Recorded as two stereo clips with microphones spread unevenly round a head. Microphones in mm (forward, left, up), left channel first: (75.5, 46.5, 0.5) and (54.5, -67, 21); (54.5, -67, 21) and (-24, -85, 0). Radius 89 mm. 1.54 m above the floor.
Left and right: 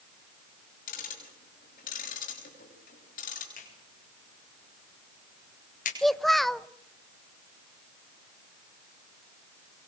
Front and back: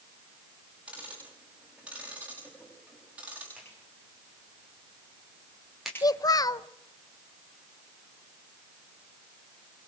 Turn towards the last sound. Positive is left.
turn(degrees=-15)